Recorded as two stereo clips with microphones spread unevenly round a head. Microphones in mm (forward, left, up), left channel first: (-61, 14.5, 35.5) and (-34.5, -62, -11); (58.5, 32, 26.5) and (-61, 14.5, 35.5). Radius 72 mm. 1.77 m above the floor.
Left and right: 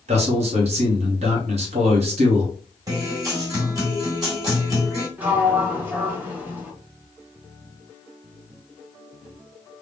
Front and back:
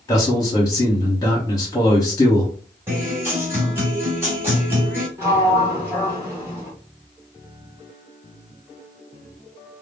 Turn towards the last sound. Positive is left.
turn(degrees=170)